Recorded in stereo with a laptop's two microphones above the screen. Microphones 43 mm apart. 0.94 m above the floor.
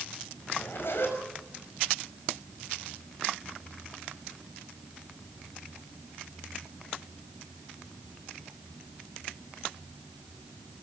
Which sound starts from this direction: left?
A zipper, at 0.5 s.